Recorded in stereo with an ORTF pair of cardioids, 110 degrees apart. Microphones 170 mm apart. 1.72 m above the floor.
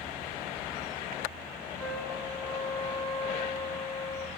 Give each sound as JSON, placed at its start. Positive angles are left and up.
{"t": 1.8, "sound": "a trumpet", "azimuth_deg": 10, "distance_m": 1.2}